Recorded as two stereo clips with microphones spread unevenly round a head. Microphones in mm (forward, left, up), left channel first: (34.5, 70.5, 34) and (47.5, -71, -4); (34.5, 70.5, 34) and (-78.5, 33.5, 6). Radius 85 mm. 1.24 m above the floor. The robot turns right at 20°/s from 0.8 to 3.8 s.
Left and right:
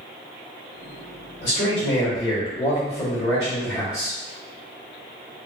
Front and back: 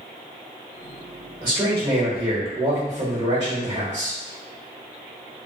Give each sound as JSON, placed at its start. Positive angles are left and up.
{"t": 1.4, "sound": "a man speaking", "azimuth_deg": 130, "distance_m": 1.4}